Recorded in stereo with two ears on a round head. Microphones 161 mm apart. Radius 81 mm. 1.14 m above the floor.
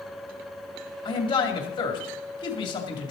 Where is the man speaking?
25° left (ahead or behind), 2.5 m.